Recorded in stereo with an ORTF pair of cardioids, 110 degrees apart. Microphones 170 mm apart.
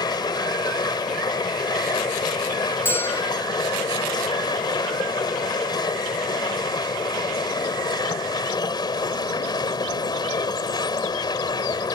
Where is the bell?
15° left.